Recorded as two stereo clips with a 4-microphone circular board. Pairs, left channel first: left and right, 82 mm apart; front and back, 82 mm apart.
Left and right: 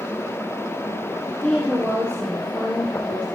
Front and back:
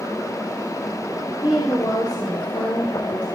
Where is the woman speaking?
15° left, 3 m.